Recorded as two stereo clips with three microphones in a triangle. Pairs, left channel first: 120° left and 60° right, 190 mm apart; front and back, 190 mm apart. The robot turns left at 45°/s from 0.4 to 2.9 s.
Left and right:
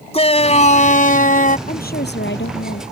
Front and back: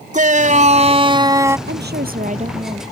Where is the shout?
160° left; by 1.6 s 110° left.